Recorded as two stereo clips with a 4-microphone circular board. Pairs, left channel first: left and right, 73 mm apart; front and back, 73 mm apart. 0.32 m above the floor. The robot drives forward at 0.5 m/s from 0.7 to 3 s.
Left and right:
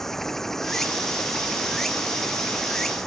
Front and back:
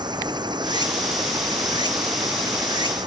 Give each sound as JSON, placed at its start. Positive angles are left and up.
{"t": 0.0, "sound": "running water", "azimuth_deg": 175}